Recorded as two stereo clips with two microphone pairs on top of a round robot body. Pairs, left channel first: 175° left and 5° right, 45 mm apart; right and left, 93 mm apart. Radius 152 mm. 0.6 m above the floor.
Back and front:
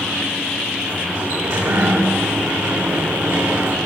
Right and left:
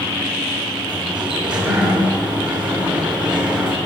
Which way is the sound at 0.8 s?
10° left.